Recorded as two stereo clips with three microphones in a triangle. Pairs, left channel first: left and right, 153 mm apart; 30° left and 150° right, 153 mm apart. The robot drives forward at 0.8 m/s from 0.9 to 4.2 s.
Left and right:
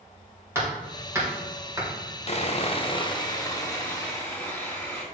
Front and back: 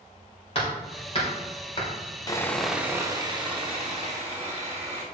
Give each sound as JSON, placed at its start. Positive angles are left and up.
{"t": 0.6, "sound": "hammering", "azimuth_deg": -20, "distance_m": 3.0}
{"t": 2.3, "sound": "sawing", "azimuth_deg": 80, "distance_m": 0.6}